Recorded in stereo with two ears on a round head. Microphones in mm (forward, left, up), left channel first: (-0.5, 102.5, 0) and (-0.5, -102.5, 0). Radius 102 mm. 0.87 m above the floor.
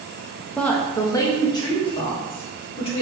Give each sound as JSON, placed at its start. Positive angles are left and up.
{"t": 0.6, "sound": "a woman speaking", "side_deg": 5, "distance_m": 0.6}